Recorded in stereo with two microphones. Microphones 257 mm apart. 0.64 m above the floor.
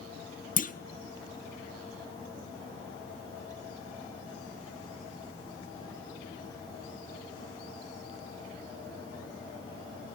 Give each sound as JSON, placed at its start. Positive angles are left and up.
{"t": 0.6, "sound": "a clunk", "side_deg": 30, "distance_m": 0.6}